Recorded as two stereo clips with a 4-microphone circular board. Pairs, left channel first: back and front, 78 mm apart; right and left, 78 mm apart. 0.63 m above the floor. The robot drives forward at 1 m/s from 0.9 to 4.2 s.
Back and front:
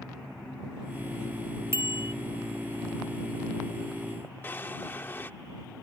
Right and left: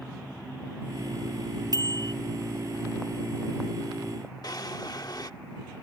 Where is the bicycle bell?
55° left; by 2.1 s 60° left.